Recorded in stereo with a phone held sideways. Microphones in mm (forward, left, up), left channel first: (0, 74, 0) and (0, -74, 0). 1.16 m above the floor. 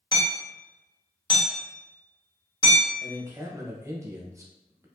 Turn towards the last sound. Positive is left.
turn(degrees=-20)  # may be behind; listen again after turning